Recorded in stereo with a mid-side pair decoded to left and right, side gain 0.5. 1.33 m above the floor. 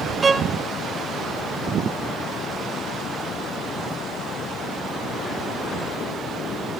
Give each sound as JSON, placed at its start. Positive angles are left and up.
{"t": 0.2, "sound": "a violin", "azimuth_deg": -30, "distance_m": 1.5}